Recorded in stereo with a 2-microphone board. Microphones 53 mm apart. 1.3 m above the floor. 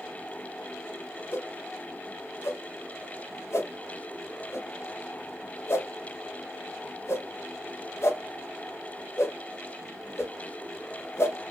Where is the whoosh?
60° left (ahead or behind), 0.7 m.